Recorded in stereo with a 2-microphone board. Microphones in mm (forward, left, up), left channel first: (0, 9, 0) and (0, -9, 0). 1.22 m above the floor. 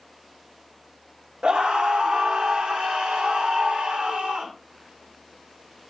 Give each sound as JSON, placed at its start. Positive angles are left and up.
{"t": 1.4, "sound": "a scream", "side_deg": -60, "distance_m": 1.3}